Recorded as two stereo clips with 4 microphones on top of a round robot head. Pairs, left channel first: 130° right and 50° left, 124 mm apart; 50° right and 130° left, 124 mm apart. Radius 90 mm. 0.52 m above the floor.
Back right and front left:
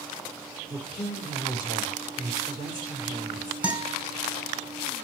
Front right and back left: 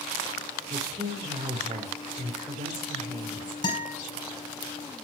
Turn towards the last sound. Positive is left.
turn(degrees=-25)